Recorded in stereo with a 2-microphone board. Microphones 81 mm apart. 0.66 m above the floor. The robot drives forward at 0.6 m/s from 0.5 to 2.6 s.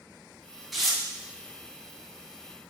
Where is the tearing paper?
Centre (ahead or behind), 0.8 m.